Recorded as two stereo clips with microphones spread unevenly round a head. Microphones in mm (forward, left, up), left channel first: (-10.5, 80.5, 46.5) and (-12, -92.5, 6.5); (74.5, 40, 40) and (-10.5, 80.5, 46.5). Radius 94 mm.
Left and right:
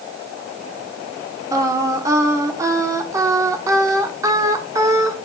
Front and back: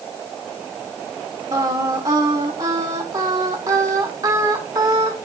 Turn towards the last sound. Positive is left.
turn(degrees=-175)